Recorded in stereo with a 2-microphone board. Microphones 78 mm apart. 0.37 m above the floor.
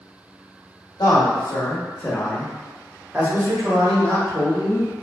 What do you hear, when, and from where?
1.0 s a man speaking: 50° left (ahead or behind), 1.2 m; by 4.9 s 45° right (ahead or behind), 1.9 m